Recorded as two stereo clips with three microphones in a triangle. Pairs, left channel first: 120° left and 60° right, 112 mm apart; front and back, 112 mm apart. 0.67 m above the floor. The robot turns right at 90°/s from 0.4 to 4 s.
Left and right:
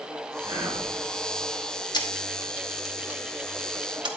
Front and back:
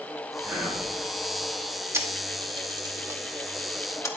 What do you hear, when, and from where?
0.4 s whispering: 115° right, 3.5 m; by 0.9 s 75° right, 3.5 m
1.9 s a camera shutter: 125° left, 1.0 m; by 4.1 s 50° right, 1.0 m